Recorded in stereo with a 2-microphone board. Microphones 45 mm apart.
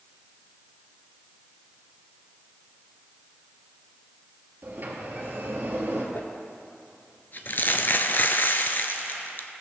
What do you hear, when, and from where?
4.6 s a sliding door: 45° right (ahead or behind), 2.0 m
6.2 s crumpling: 50° left (ahead or behind), 0.6 m